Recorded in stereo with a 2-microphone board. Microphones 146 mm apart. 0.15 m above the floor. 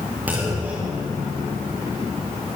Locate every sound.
0.3 s a clunk: 10° right (ahead or behind), 7 m